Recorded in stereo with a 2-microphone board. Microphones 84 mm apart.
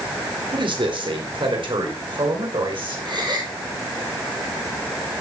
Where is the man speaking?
80° right, 4 m.